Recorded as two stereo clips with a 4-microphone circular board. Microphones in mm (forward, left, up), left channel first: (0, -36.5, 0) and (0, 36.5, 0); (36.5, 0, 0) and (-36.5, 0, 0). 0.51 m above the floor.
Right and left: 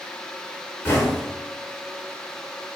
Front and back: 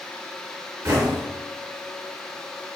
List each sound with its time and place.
0.8 s knocking: 145° right, 1.3 m